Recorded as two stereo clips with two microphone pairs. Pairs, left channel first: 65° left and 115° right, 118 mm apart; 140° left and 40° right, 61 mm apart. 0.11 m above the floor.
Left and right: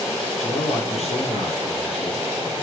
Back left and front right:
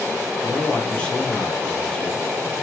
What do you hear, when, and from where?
0.4 s a man speaking: 70° left, 2.5 m